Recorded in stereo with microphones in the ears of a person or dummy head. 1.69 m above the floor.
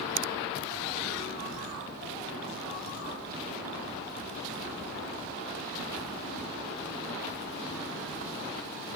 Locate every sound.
0.2 s a finger snap: 70° right (ahead or behind)